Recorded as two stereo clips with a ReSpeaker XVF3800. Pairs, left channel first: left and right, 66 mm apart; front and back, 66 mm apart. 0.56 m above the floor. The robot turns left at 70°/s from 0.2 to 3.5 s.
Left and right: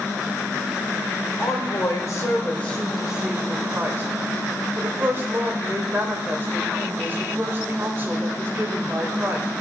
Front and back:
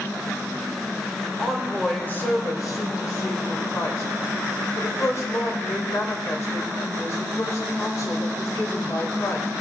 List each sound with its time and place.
1.4 s a woman speaking: 110° left, 2.5 m; by 9.5 s 35° right, 2.5 m